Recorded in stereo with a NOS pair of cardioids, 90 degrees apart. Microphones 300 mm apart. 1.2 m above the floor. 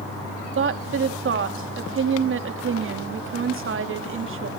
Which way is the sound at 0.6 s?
45° right.